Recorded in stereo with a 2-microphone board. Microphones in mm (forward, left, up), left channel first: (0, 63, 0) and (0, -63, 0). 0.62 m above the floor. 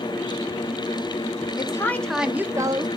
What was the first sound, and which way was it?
A woman speaking, 30° left (ahead or behind).